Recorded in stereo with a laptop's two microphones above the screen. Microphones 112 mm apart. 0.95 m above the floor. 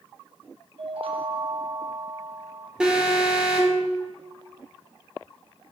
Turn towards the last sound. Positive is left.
turn(degrees=-10)  # may be behind; listen again after turning